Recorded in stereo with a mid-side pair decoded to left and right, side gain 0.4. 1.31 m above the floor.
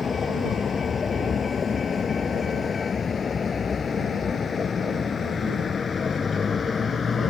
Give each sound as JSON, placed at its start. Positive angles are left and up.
{"t": 0.0, "sound": "a vehicle", "azimuth_deg": 45}